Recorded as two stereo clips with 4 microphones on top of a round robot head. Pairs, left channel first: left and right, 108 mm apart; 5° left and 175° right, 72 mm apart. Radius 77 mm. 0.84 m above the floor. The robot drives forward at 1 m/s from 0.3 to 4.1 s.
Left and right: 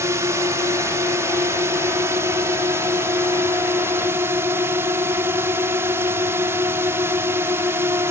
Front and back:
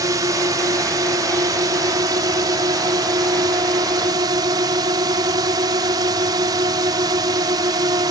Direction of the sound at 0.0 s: 150° right.